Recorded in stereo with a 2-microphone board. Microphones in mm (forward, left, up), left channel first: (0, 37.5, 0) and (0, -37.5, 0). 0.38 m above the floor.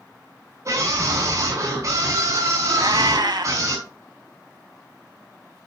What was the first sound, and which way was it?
A scream, 45° right (ahead or behind).